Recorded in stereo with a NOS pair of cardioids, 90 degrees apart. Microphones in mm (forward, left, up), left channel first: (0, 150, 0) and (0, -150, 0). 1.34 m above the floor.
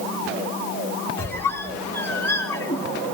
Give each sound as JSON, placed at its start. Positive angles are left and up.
{"t": 1.2, "sound": "a squeak", "azimuth_deg": 10, "distance_m": 1.6}